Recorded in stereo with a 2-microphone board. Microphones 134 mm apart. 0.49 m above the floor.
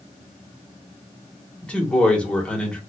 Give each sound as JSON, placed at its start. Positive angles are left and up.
{"t": 1.6, "sound": "a man speaking", "side_deg": 10, "distance_m": 1.1}